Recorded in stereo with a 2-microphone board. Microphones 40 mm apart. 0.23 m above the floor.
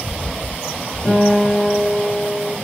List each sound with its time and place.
1.1 s a guitar: 5° left (ahead or behind), 1.8 m